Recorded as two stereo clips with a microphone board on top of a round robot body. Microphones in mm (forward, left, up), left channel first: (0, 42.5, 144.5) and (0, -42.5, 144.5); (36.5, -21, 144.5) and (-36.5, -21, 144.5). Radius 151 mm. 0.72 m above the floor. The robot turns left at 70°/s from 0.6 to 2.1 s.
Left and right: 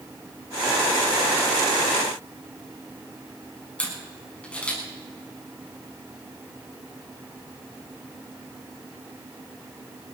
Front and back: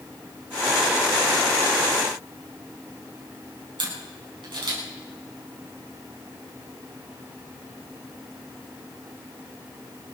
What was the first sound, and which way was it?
A camera shutter, 165° left.